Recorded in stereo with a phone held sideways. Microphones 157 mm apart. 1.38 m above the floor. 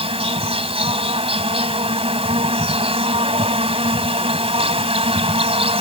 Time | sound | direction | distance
0.0 | an insect | 40° right (ahead or behind) | ?